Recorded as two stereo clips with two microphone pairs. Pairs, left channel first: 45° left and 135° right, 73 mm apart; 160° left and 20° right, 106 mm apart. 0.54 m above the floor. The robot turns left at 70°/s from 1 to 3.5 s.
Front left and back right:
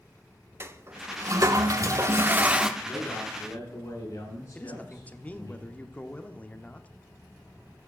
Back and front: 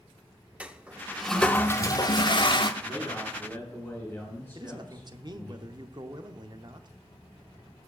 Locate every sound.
0.6 s a toilet flushing: 90° right, 0.7 m; by 2.7 s 150° left, 0.7 m
2.8 s a man speaking: 135° left, 7 m; by 5.5 s 85° left, 7 m
4.5 s a man speaking: 15° right, 0.9 m